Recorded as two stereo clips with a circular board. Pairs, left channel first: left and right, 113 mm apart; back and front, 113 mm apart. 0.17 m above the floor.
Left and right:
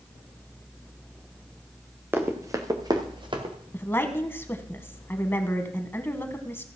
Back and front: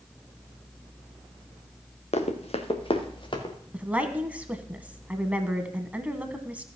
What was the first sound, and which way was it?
Running footsteps, 160° right.